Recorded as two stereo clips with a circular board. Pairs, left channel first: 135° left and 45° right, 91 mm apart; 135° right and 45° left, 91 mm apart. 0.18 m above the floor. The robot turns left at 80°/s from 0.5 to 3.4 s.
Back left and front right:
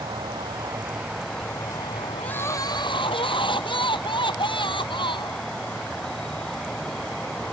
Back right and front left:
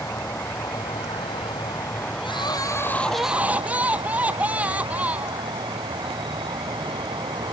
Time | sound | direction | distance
0.0 | an insect | 75° right | ?
2.2 | crying | 145° right | ?